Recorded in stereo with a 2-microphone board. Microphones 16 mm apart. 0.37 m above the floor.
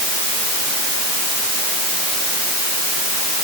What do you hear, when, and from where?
Only background noise.